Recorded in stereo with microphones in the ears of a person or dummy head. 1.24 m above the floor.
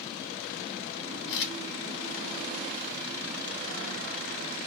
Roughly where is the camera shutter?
Left.